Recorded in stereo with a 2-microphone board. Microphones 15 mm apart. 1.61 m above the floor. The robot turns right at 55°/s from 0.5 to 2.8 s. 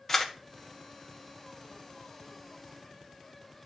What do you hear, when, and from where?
0.1 s a camera shutter: 15° left (ahead or behind), 1.3 m